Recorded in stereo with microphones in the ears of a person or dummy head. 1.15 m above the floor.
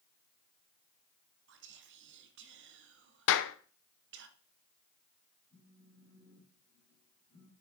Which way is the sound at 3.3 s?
65° left (ahead or behind).